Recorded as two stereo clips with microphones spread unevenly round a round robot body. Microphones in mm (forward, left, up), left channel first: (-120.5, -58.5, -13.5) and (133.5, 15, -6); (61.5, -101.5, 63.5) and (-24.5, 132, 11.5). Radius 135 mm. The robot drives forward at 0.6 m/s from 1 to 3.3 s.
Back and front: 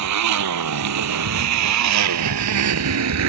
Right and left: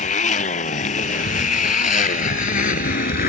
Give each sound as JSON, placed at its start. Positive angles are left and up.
{"t": 0.0, "sound": "a motorcycle", "azimuth_deg": -10}